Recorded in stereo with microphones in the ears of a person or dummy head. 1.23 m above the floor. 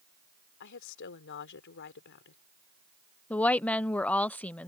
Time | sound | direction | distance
0.6 | a woman speaking | 65° left (ahead or behind) | ?
3.3 | a woman speaking | 10° left (ahead or behind) | ?